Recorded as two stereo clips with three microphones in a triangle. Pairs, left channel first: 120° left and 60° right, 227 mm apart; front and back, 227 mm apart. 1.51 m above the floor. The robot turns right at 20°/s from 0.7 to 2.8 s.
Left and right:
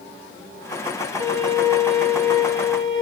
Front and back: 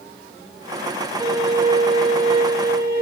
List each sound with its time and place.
1.2 s a violin: 40° right, 1.3 m; by 3.0 s 5° right, 1.3 m